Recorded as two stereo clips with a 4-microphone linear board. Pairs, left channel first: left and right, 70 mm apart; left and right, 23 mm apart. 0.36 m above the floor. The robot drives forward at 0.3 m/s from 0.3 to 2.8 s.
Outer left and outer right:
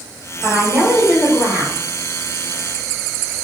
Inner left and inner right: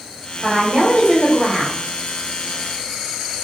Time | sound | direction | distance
0.4 | a woman speaking | 20° right (ahead or behind) | 1.5 m